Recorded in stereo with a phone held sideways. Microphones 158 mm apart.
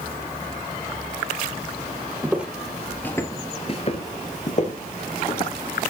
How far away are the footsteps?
About 2.0 m.